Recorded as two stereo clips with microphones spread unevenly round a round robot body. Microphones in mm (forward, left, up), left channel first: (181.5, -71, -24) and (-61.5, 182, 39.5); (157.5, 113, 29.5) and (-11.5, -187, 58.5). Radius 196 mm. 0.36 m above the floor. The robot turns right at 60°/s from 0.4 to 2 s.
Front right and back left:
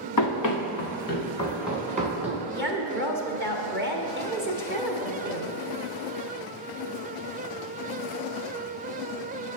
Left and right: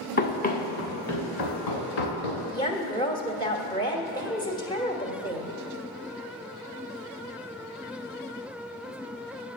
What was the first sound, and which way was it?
Running footsteps, 5° right.